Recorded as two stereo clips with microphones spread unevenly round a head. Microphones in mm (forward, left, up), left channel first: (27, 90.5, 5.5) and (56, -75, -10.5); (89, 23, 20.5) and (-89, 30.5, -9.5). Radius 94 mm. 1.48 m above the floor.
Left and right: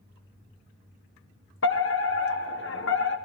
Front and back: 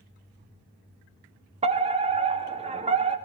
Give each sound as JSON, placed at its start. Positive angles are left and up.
{"t": 1.6, "sound": "a fire alarm", "azimuth_deg": 130, "distance_m": 1.8}